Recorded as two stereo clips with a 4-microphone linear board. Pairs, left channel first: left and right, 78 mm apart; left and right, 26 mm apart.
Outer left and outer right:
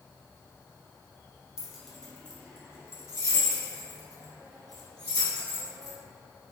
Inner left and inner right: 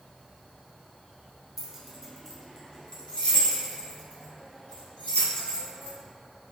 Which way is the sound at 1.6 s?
5° right (ahead or behind).